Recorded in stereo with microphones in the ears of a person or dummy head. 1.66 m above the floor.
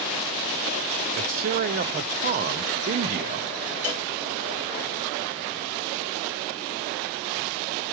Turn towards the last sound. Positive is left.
turn(degrees=15)  # may be behind; listen again after turning